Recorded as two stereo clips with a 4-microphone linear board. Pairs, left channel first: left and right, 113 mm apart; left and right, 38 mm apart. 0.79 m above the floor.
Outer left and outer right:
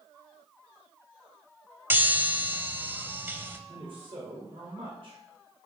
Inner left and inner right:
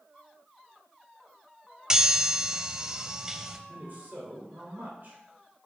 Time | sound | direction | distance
1.9 | a chime | 20° right (ahead or behind) | 0.6 m
3.7 | a man speaking | 55° right (ahead or behind) | 3 m